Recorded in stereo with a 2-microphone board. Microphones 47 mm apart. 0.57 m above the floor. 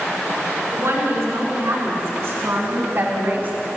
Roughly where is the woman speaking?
Right.